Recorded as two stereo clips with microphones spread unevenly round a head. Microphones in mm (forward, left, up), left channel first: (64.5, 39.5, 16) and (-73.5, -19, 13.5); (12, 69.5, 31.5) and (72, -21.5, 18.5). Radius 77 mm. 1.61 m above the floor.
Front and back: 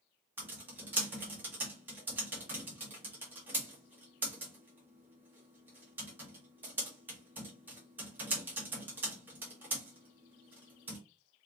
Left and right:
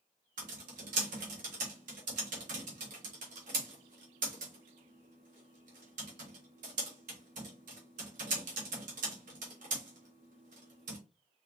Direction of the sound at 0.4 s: 80° right.